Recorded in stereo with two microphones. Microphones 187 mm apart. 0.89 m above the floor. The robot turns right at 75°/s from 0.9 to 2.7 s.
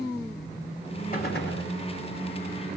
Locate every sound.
1.1 s a gunshot: 50° left, 1.9 m; by 1.7 s 95° left, 1.9 m